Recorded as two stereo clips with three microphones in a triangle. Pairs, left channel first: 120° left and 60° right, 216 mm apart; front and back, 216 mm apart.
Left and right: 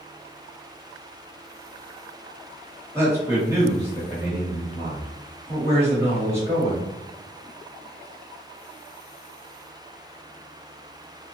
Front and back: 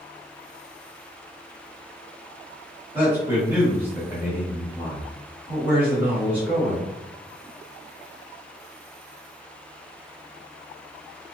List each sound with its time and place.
3.0 s a man speaking: 115° right, 1.3 m